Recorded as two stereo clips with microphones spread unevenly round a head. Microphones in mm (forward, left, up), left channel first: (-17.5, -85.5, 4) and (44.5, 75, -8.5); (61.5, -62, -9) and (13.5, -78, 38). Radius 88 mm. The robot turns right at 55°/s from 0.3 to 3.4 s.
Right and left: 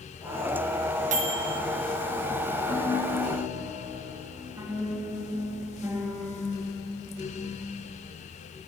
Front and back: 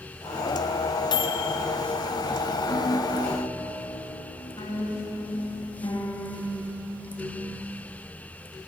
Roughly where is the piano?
Ahead right.